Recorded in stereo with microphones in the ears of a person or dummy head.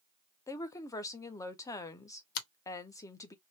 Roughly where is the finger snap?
Left.